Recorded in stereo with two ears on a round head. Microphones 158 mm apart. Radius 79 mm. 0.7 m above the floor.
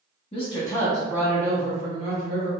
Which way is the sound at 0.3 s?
35° left (ahead or behind).